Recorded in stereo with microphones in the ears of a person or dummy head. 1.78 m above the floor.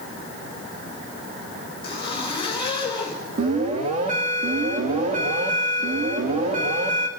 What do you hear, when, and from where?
1.8 s a zipper: 30° left (ahead or behind), 4 m
3.4 s an alarm: 35° right (ahead or behind), 3 m